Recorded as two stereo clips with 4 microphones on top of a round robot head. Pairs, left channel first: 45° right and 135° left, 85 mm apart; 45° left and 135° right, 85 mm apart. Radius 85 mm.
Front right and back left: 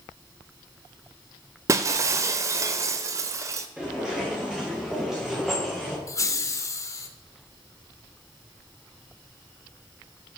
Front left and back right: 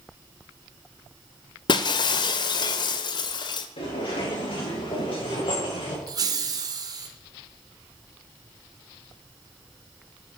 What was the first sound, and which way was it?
Breaking glass, 80° left.